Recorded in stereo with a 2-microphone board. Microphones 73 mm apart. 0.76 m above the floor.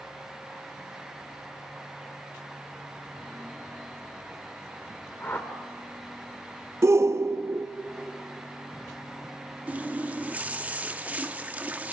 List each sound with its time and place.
5.2 s a whoosh: 30° left (ahead or behind), 1.7 m
6.8 s a shout: 40° right (ahead or behind), 0.5 m
9.7 s a running tap: 20° right (ahead or behind), 0.7 m